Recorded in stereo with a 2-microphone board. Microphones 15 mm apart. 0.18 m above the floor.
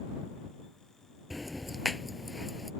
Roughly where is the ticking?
Centre.